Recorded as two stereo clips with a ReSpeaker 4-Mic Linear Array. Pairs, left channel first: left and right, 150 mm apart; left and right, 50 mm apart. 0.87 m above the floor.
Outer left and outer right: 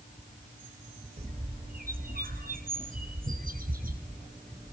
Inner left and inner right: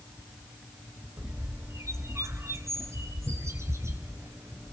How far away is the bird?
About 4 m.